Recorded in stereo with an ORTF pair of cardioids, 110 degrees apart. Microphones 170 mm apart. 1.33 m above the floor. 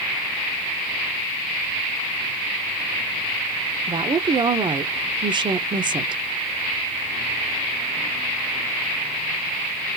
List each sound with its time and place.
3.9 s a woman speaking: 30° right, 0.7 m